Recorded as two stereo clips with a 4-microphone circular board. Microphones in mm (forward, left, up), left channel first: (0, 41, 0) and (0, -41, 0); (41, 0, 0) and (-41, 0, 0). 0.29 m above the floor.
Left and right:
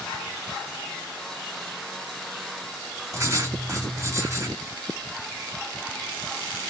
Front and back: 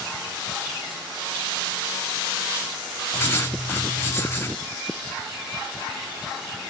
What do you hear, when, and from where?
3.1 s writing: 55° right, 1.8 m